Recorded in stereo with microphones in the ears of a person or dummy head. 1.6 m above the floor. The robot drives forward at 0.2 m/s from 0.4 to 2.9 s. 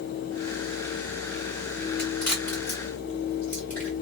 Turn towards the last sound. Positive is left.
turn(degrees=10)  # may be behind; listen again after turning